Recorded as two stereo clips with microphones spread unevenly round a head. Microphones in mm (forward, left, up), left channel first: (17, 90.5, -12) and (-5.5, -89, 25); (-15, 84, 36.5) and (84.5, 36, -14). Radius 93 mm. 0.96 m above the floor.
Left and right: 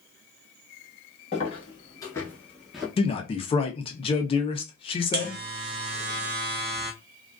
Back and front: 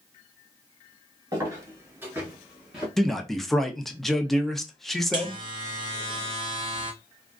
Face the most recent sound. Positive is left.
turn(degrees=-55)